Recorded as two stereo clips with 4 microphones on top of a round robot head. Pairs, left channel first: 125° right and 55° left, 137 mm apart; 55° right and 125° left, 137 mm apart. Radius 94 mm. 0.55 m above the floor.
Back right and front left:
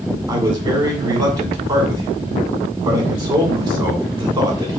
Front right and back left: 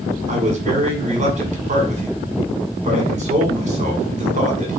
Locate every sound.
0.3 s a man speaking: 105° left, 2.0 m